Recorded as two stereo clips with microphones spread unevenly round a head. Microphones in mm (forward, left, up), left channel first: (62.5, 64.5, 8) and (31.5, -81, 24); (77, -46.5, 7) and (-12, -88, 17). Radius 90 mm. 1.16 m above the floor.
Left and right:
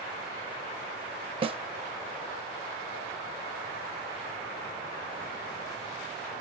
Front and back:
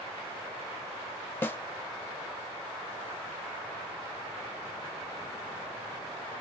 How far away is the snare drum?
About 0.6 m.